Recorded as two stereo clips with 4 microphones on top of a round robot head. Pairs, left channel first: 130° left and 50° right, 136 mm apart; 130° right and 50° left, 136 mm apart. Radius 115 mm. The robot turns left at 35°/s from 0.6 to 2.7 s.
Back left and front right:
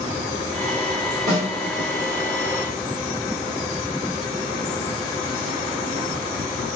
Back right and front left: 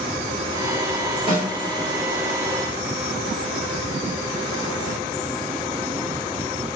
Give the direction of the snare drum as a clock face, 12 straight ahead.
12 o'clock.